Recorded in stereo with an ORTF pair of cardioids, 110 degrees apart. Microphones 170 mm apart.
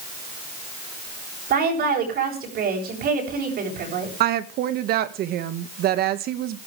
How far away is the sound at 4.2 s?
About 1.7 m.